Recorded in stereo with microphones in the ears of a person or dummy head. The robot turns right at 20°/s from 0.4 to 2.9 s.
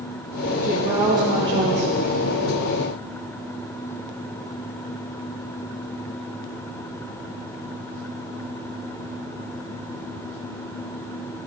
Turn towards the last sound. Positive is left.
turn(degrees=-125)